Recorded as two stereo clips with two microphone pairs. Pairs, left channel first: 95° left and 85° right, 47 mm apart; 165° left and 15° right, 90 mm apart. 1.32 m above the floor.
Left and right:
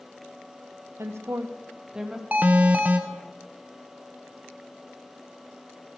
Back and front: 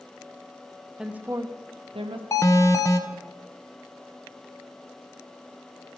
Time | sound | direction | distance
1.0 | a woman speaking | 100° right | 0.8 m
2.3 | an alarm | 140° right | 0.7 m